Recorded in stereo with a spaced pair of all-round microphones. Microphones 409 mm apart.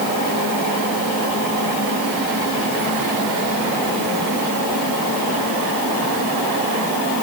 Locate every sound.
Only background noise.